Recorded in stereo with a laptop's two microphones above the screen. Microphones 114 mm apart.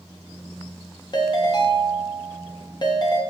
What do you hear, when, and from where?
1.1 s a ringtone: 40° left (ahead or behind), 0.7 m